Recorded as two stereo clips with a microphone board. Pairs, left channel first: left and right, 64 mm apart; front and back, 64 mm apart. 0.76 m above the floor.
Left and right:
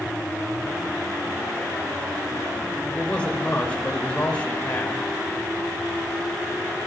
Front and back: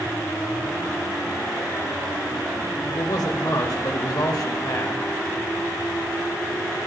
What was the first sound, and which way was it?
A man speaking, 20° left.